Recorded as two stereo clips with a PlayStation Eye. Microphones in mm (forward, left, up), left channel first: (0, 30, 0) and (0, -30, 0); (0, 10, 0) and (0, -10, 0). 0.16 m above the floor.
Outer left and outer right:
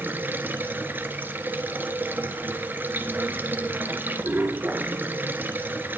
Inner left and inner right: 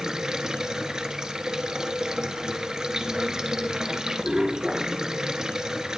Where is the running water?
30° right (ahead or behind), 1.5 m.